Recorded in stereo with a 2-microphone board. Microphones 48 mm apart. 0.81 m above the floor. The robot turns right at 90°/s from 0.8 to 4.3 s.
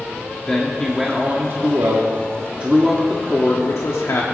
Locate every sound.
0.5 s a man speaking: 165° left, 1.2 m; by 4.2 s 115° left, 1.2 m